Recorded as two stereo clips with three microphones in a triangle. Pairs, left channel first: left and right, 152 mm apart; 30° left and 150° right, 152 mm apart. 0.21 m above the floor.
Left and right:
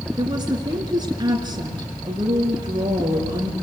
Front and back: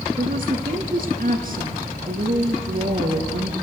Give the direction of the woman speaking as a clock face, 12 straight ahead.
5 o'clock.